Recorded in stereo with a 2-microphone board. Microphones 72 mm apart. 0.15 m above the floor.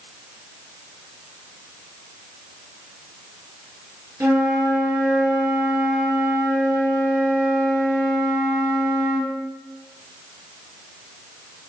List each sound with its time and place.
4.2 s a flute: 50° right (ahead or behind), 1.9 m